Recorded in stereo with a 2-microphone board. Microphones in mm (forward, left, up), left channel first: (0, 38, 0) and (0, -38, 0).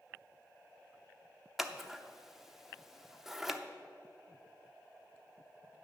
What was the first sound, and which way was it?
Scissors, 5° right (ahead or behind).